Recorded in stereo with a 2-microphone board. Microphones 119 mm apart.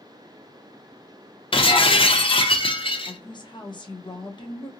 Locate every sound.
1.5 s breaking glass: 45° left (ahead or behind), 0.6 m
3.1 s a woman speaking: 40° left (ahead or behind), 0.7 m